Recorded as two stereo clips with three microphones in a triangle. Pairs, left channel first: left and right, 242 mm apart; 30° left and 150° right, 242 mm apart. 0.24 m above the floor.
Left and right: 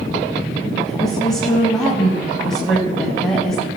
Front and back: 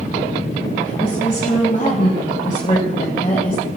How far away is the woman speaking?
About 1.2 m.